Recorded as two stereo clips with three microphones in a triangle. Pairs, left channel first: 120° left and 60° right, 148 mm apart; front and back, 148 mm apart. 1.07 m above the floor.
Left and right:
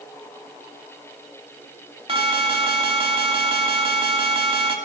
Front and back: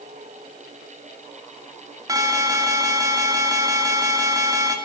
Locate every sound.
2.1 s an alarm: 115° right, 2.5 m